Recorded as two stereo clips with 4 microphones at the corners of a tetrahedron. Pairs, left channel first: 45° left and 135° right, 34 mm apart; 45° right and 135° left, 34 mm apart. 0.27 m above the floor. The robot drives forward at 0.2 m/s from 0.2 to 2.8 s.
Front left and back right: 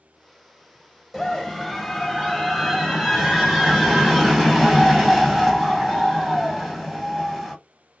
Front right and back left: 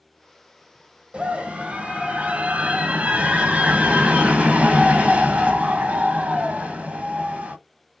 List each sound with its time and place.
1.1 s a scream: 145° left, 1.4 m; by 7.5 s 155° left, 1.6 m